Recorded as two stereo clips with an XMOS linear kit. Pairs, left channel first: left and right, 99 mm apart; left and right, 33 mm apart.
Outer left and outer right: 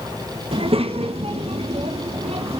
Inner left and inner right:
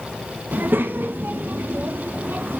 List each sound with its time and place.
0.5 s a child speaking: 70° right (ahead or behind), 1.3 m; by 2.6 s 85° right, 2.5 m